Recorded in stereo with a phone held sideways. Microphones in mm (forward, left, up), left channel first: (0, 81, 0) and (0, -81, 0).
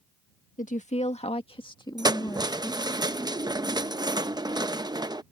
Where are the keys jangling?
25° right (ahead or behind).